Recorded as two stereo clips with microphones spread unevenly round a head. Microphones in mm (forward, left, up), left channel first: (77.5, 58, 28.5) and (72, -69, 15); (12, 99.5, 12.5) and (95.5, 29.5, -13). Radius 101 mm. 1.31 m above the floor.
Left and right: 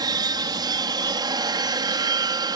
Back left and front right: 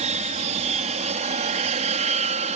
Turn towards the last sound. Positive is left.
turn(degrees=-35)